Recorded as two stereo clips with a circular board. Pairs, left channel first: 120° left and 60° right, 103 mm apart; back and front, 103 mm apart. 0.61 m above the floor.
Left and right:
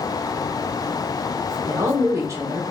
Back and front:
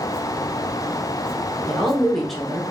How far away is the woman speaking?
About 0.7 m.